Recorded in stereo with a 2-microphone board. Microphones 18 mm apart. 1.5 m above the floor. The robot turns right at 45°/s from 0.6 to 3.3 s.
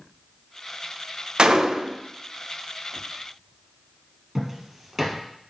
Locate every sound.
1.4 s a gunshot: 55° right (ahead or behind), 0.5 m; by 2.0 s 50° right (ahead or behind), 0.5 m
4.3 s footsteps: 20° right (ahead or behind), 1.8 m